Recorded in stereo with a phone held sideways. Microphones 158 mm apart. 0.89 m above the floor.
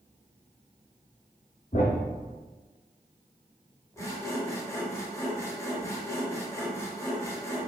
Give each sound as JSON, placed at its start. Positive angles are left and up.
{"t": 1.7, "sound": "a thud", "side_deg": 50, "distance_m": 1.5}
{"t": 4.0, "sound": "sawing", "side_deg": 20, "distance_m": 0.9}